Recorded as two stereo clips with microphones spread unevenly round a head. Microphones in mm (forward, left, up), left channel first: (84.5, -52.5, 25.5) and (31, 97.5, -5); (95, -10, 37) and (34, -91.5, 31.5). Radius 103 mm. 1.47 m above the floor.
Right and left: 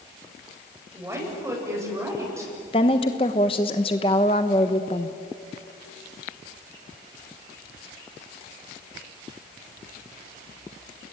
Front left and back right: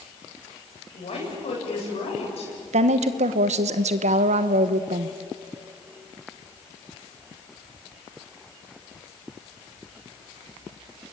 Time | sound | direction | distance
0.9 | a woman speaking | 35° left | 8.5 m
2.7 | a woman speaking | 135° right | 1.1 m